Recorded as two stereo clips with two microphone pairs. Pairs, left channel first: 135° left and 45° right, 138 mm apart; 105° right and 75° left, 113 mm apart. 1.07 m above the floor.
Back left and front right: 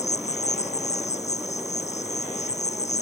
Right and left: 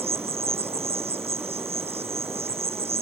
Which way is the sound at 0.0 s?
100° left.